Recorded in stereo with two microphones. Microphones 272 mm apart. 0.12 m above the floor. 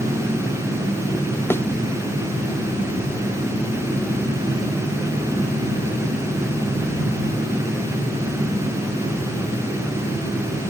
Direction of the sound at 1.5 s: 10° left (ahead or behind).